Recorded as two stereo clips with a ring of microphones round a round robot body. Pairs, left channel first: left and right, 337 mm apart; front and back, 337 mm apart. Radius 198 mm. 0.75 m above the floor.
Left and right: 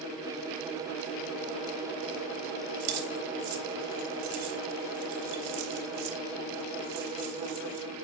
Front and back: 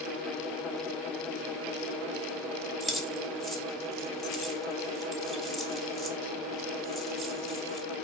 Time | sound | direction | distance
2.8 | keys jangling | 90° right | 2 m